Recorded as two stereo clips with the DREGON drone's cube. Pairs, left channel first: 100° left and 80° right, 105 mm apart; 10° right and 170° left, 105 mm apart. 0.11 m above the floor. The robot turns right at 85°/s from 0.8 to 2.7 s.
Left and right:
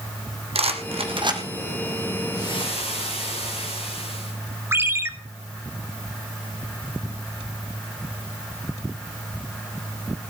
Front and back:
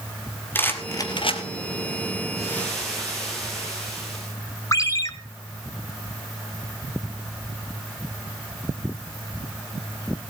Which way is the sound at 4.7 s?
35° right.